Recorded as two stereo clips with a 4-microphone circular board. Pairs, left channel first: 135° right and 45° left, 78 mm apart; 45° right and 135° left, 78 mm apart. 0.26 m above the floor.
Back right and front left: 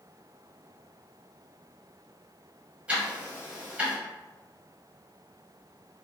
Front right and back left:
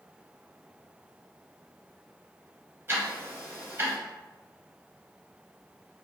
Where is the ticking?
105° left, 1.0 m.